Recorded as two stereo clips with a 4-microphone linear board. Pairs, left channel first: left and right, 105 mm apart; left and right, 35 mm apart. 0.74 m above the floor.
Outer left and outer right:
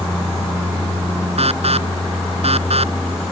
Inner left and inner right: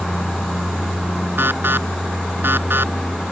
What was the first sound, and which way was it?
An alarm, 65° right (ahead or behind).